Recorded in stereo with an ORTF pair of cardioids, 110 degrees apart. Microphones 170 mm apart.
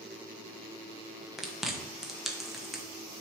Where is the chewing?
Straight ahead, 1.0 m.